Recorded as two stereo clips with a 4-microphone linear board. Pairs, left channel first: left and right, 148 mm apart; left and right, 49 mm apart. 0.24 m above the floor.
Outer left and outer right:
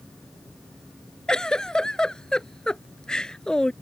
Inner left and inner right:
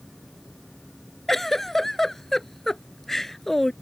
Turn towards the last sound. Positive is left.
turn(degrees=5)  # may be behind; listen again after turning